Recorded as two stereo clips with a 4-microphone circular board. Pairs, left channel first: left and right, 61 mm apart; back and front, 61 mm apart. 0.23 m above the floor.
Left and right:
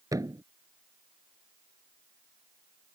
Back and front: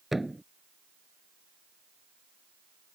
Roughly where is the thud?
Right.